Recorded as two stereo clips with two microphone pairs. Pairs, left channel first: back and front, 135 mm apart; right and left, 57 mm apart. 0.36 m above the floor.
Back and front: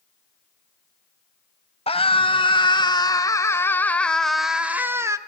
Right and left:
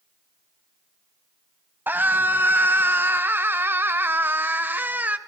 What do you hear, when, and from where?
1.9 s a scream: 140° left, 2.5 m; by 5.2 s 55° left, 1.6 m